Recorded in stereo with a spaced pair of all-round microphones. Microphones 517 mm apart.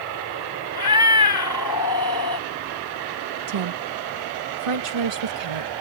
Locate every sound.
0.8 s a cat meowing: 45° left (ahead or behind)
3.5 s a woman speaking: 80° right